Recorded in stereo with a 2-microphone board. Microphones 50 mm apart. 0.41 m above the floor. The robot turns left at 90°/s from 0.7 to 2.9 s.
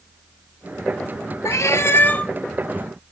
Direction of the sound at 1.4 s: 95° left.